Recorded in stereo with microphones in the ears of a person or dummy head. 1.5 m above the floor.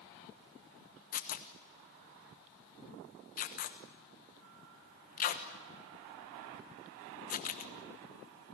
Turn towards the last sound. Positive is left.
turn(degrees=45)  # may be behind; listen again after turning